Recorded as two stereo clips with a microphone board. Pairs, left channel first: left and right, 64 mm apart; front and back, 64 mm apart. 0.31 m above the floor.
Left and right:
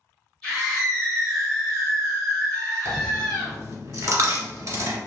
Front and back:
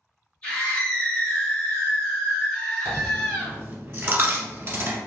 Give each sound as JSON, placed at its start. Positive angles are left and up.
{"t": 0.4, "sound": "a scream", "azimuth_deg": 25, "distance_m": 1.6}
{"t": 2.9, "sound": "a dropped coin", "azimuth_deg": -130, "distance_m": 0.8}